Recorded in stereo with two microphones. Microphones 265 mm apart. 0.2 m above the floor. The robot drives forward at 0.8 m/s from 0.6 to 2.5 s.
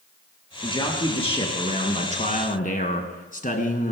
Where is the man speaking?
20° left (ahead or behind), 3 m; by 3.9 s 30° left (ahead or behind), 1.8 m.